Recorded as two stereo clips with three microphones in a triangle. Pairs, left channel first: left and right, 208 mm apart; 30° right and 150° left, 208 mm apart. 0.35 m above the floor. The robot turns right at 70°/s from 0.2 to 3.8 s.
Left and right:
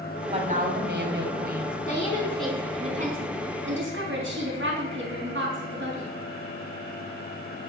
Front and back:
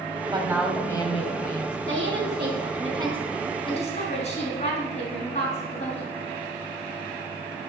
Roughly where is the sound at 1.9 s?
Behind left.